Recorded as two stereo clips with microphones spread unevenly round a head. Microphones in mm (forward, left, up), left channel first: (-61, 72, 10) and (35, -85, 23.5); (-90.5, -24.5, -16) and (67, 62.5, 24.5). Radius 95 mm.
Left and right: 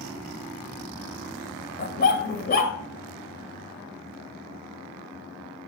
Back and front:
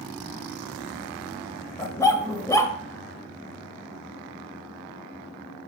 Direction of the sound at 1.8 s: 125° left.